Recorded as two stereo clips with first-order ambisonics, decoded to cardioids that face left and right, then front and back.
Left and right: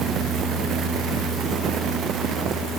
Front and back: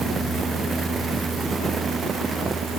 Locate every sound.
Only background noise.